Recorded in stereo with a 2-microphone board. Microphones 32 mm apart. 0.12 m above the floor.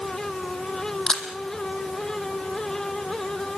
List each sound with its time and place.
1.1 s a camera shutter: 25° left (ahead or behind), 2.5 m